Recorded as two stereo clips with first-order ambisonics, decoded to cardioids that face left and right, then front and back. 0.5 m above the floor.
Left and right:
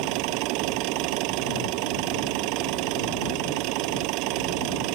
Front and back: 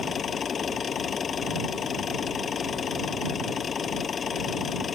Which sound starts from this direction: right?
An engine running, at 0.0 s.